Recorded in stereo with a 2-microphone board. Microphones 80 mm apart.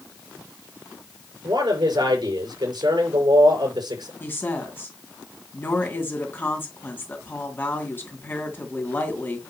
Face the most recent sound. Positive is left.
turn(degrees=25)  # may be behind; listen again after turning